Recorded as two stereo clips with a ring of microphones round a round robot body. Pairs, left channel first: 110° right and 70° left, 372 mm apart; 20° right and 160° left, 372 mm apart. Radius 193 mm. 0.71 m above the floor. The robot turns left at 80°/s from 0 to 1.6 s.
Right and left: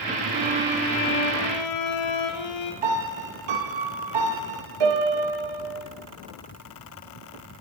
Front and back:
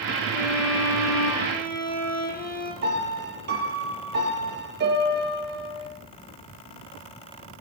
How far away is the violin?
About 3.5 m.